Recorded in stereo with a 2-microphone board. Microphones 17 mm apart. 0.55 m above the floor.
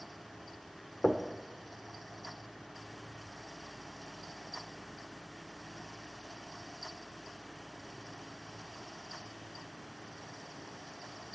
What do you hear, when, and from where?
1.0 s knocking: 45° left (ahead or behind), 0.9 m